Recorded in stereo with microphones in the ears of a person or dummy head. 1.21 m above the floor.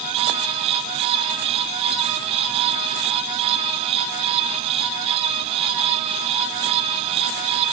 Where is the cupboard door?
I don't hear a cupboard door.